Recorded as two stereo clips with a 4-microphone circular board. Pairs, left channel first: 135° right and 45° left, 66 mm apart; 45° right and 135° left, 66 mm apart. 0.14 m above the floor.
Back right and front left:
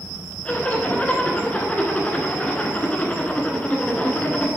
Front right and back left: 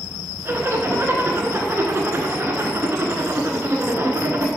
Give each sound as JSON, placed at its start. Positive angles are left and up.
{"t": 0.5, "sound": "a zipper", "azimuth_deg": 165, "distance_m": 1.0}